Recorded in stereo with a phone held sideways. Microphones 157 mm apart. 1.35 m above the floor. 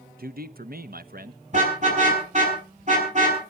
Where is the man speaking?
70° right (ahead or behind), 0.9 m.